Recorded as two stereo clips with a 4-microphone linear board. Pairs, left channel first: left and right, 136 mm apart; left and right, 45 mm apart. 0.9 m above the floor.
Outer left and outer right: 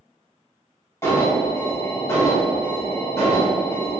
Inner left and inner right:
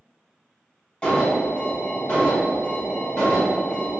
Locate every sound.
1.0 s an alarm: 20° left (ahead or behind), 1.0 m